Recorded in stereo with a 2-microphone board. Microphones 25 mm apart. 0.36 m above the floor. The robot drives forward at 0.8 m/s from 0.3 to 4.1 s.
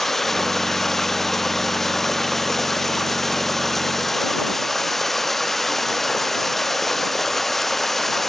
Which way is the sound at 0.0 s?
10° left (ahead or behind).